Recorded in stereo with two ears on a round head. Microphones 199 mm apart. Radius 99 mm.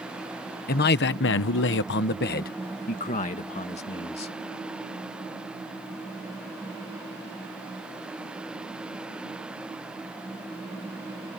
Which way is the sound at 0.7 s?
45° left (ahead or behind).